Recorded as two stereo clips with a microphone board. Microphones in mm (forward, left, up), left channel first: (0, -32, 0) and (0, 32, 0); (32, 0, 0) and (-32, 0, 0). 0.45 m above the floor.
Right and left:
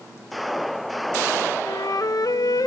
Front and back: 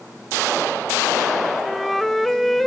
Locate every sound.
1.6 s a flute: 90° right, 0.6 m